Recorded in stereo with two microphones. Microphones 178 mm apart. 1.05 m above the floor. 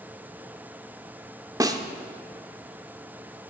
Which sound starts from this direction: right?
A snare drum, at 1.6 s.